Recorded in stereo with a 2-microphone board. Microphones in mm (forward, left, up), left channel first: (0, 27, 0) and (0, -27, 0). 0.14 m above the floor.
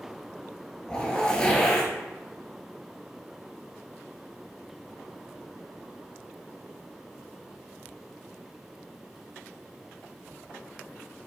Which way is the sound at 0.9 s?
15° left (ahead or behind).